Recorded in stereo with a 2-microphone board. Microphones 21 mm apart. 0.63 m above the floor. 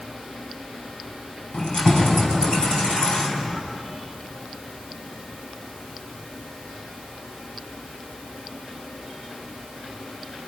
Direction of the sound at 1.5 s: 45° left (ahead or behind).